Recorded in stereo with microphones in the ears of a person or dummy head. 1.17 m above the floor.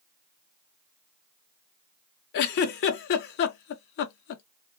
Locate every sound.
2.3 s a giggle: 60° left (ahead or behind), 0.6 m